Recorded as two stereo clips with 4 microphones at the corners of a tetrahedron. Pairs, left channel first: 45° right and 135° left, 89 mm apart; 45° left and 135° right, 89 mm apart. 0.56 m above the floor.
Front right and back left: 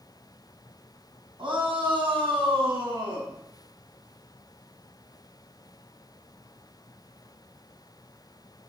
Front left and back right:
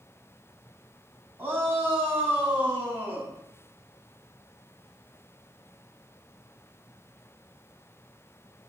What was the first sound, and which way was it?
A shout, 160° left.